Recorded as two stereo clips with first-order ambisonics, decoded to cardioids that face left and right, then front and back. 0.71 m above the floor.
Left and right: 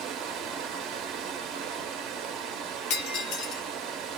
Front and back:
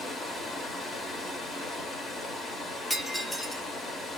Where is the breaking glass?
75° left, 0.8 m.